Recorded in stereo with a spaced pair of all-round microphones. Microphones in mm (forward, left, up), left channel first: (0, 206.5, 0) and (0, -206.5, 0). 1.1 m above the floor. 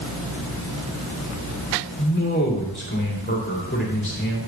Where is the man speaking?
25° left (ahead or behind), 2.5 m.